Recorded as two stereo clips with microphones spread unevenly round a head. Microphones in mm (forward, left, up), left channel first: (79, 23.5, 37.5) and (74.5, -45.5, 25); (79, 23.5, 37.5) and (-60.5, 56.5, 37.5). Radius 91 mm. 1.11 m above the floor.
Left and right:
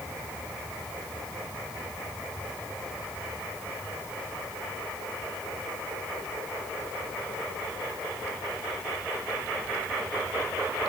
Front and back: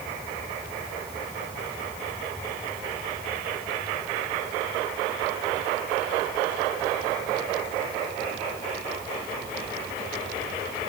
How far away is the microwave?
I don't hear a microwave.